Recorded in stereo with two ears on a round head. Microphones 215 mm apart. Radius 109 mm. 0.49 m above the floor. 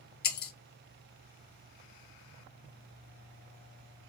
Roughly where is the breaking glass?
Left.